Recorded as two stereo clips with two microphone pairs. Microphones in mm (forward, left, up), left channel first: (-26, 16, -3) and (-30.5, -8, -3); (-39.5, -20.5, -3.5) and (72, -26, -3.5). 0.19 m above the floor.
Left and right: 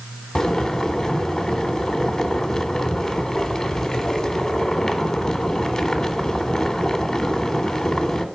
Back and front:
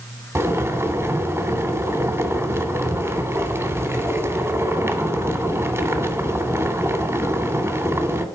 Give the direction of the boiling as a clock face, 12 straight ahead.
11 o'clock.